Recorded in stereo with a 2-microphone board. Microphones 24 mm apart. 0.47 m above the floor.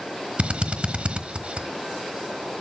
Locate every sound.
0.4 s a drill: 55° right (ahead or behind), 1.2 m